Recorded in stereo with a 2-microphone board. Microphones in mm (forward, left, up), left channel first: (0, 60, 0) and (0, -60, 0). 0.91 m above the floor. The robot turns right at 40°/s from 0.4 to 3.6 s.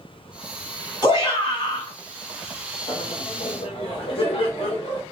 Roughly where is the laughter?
Left.